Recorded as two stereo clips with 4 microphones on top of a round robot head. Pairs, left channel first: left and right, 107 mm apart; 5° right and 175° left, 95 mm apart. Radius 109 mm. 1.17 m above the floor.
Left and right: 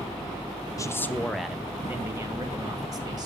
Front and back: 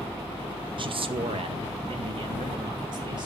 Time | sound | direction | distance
0.8 | a man speaking | 150° left | 0.9 m